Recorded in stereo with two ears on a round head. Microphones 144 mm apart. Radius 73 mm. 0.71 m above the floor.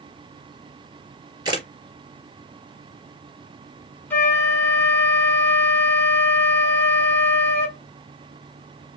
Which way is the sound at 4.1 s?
15° left (ahead or behind).